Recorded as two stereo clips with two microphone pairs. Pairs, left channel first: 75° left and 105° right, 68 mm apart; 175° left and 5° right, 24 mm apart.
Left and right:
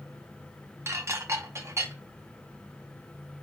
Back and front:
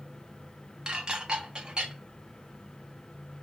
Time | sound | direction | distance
0.9 | dishes clattering | 65° right | 0.6 m